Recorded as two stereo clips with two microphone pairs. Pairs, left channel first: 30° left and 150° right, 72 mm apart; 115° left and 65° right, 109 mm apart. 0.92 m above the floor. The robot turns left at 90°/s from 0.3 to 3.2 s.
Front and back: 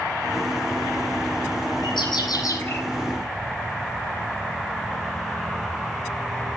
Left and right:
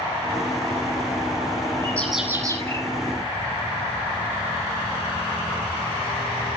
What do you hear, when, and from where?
1.8 s a bird: 50° left, 8 m; by 2.8 s 40° right, 8 m